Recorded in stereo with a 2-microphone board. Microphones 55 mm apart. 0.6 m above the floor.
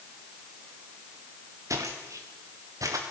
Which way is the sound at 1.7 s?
75° right (ahead or behind).